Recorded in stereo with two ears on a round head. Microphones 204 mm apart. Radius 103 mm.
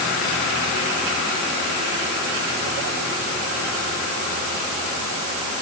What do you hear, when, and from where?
Only background noise.